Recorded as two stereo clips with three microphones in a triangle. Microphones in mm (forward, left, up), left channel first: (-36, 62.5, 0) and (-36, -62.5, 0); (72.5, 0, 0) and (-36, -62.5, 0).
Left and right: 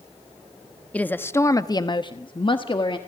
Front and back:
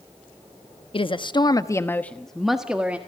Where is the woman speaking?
15° left, 1.0 m; by 3.0 s 135° left, 1.4 m.